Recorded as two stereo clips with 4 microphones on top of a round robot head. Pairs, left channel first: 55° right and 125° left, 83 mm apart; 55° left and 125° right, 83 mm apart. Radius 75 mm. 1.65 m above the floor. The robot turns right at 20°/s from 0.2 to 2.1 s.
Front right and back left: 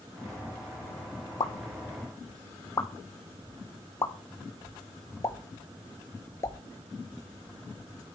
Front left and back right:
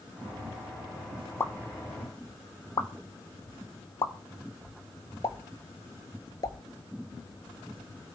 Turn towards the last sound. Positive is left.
turn(degrees=5)